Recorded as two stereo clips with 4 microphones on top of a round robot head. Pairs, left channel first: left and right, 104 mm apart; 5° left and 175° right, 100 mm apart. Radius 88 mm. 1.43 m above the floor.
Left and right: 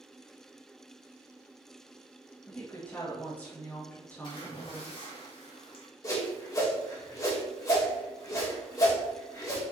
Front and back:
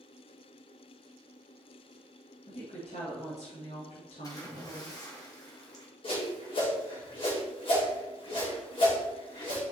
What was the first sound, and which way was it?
A woman speaking, 15° left.